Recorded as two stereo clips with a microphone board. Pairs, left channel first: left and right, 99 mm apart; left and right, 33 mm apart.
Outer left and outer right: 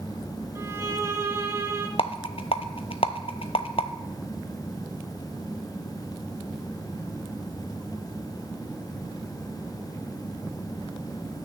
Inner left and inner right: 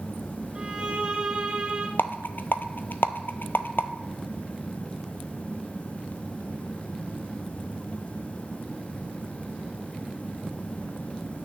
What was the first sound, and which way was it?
A violin, 30° right (ahead or behind).